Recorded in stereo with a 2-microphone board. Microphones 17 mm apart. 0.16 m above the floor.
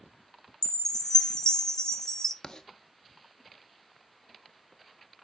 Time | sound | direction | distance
0.6 | a chime | 40° left (ahead or behind) | 0.6 m
2.4 | writing | 40° left (ahead or behind) | 0.6 m